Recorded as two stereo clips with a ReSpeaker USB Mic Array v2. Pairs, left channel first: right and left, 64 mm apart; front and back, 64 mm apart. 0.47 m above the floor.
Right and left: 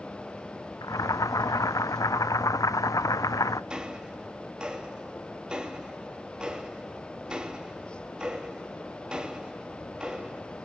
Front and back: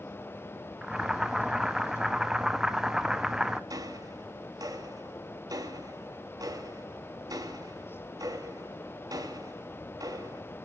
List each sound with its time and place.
0.8 s boiling: 100° right, 0.5 m
3.7 s ticking: 165° left, 1.7 m